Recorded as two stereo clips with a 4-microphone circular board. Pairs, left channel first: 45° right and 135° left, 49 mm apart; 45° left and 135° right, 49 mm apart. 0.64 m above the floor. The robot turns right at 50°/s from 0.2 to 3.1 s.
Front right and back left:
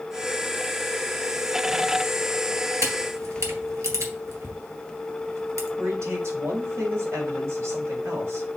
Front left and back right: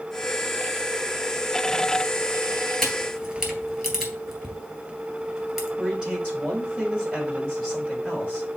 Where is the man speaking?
160° left, 4 m.